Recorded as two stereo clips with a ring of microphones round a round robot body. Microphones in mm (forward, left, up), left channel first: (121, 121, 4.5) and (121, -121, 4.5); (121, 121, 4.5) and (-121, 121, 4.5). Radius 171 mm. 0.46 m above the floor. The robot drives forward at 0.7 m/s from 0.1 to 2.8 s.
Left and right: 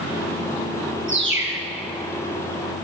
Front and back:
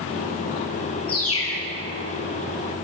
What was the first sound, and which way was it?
A bird, 50° right.